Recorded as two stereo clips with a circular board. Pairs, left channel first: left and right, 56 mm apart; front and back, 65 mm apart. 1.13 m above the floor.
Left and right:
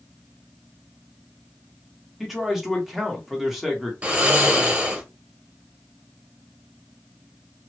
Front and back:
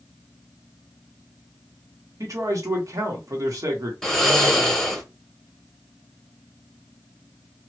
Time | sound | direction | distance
2.2 | a man speaking | 175° right | 1.2 m
4.0 | snoring | 75° right | 0.9 m